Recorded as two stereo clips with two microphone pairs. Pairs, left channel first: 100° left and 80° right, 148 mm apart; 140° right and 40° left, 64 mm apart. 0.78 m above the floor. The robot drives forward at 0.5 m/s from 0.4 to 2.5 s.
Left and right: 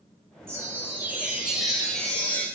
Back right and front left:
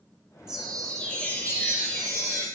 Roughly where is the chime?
Ahead right.